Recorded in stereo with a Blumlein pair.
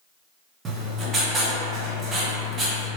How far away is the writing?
About 0.8 m.